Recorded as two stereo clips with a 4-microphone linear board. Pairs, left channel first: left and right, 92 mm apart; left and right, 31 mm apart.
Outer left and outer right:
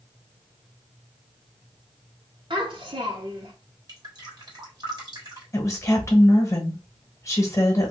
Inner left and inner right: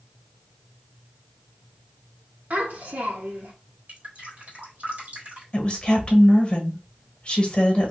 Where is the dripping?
45° right (ahead or behind), 1.5 m.